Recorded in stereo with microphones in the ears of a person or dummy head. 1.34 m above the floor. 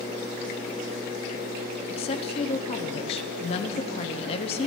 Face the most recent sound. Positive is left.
turn(degrees=30)  # may be behind; listen again after turning